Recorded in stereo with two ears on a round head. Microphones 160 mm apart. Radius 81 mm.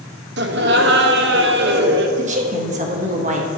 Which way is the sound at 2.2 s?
40° right (ahead or behind).